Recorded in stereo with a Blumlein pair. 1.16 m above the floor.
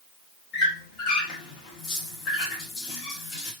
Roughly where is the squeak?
Ahead left.